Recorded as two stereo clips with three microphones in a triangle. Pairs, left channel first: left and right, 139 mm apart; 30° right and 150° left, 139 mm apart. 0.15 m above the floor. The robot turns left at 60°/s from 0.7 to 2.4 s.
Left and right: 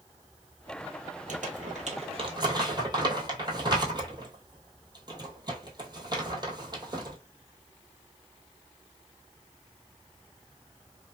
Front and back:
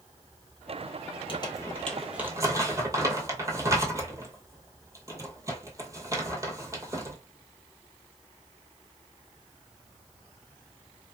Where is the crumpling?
80° right, 1.1 m; by 7.2 s 145° right, 1.1 m.